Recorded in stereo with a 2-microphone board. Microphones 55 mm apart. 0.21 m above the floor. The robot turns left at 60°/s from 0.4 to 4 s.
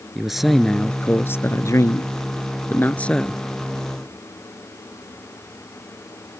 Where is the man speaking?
175° right; by 3.4 s 5° left.